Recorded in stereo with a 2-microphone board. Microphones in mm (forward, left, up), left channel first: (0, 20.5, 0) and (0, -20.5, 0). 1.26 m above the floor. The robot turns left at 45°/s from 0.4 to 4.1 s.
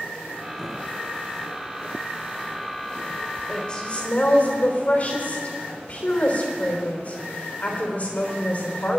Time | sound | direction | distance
3.5 | a woman speaking | 15° left (ahead or behind) | 3.5 m